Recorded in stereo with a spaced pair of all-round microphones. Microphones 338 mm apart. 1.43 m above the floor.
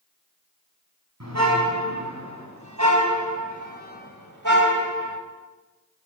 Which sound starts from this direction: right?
A car horn, at 1.2 s.